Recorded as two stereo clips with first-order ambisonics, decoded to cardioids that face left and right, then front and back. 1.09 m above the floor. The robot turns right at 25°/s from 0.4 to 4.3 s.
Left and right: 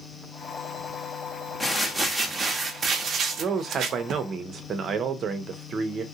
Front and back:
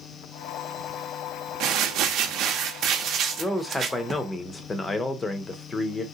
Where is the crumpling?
175° left, 0.6 m; by 4.2 s 115° right, 0.6 m.